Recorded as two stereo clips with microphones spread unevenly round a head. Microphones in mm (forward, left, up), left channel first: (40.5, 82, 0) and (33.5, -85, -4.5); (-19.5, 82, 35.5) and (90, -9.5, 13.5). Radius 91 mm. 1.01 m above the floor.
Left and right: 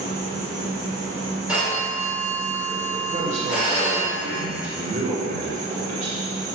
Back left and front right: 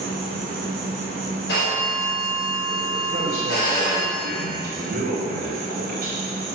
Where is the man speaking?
50° right, 2 m.